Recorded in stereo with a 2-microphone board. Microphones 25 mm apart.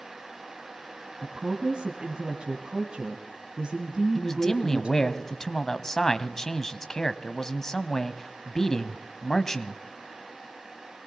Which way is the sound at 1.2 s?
40° right (ahead or behind).